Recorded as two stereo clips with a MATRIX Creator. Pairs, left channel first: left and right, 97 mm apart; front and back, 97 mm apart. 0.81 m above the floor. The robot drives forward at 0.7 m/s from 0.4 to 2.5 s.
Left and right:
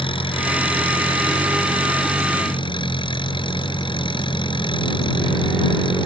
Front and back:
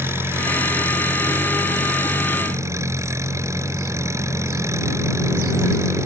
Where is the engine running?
115° left; by 6.1 s 120° left.